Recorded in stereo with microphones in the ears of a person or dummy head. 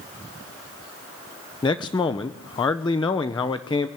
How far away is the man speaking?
About 0.6 m.